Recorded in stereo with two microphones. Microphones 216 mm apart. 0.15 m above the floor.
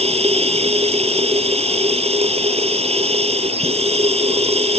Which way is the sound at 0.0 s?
30° right (ahead or behind).